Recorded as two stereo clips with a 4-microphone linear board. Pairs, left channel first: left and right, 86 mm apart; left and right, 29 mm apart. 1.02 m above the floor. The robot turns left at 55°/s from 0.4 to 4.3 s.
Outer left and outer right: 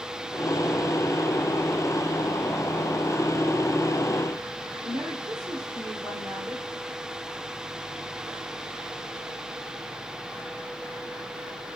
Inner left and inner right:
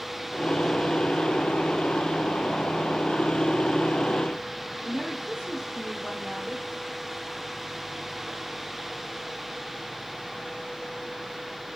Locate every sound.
4.8 s a woman speaking: 45° right (ahead or behind), 3 m